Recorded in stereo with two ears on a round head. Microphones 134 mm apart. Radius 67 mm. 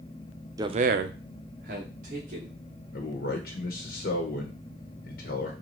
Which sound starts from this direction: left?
A man speaking, at 2.9 s.